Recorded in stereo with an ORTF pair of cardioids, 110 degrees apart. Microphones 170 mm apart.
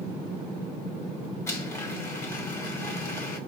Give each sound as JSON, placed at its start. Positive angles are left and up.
{"t": 1.5, "sound": "a blender", "azimuth_deg": 15, "distance_m": 1.3}